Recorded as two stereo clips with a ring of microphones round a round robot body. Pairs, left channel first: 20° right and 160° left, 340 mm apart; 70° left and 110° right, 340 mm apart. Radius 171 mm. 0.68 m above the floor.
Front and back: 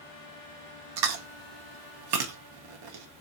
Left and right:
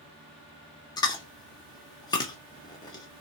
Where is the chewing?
145° left, 1.3 m.